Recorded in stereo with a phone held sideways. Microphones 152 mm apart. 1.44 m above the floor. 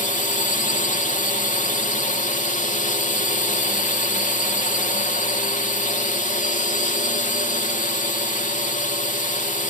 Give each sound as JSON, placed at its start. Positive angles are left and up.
{"t": 0.0, "sound": "a drone", "side_deg": 55}